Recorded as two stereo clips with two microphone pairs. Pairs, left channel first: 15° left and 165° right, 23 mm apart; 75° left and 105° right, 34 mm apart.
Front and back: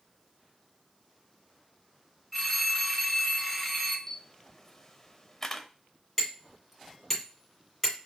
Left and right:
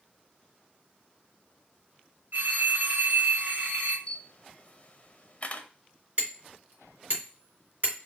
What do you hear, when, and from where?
2.3 s a phone ringing: 80° right, 2.5 m
4.1 s a camera shutter: 60° left, 0.5 m
6.2 s hammering: 70° right, 2.0 m